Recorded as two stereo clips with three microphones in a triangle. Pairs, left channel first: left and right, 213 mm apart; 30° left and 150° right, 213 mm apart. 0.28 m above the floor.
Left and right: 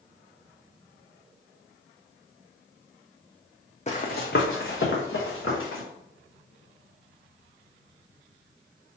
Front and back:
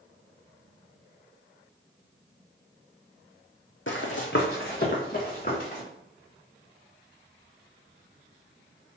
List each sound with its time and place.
3.9 s running footsteps: 40° left, 0.7 m; by 5.8 s 75° left, 2 m